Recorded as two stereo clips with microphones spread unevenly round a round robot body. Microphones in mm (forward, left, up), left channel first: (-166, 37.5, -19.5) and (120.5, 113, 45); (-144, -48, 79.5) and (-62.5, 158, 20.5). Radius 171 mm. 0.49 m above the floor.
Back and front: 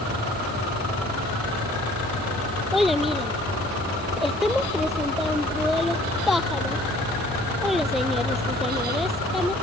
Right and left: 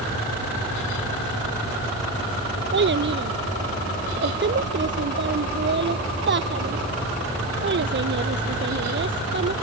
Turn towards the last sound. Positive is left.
turn(degrees=105)